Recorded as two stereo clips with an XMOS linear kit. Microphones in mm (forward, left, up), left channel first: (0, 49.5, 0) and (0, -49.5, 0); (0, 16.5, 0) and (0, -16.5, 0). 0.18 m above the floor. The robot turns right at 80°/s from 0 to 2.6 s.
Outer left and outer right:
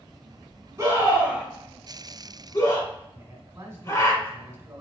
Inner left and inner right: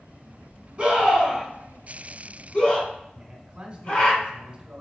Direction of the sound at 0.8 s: 30° right (ahead or behind).